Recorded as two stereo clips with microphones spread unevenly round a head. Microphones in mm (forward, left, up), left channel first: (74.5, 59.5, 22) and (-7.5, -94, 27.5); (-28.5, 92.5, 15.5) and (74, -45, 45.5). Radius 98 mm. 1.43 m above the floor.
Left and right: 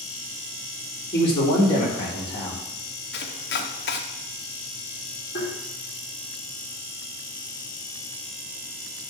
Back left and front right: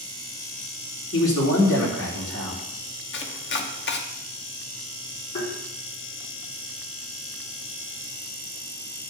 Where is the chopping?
105° left, 1.1 m.